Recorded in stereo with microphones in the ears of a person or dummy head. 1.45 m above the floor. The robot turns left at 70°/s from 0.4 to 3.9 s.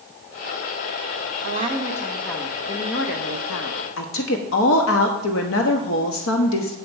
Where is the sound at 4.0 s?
70° left (ahead or behind), 1.1 m.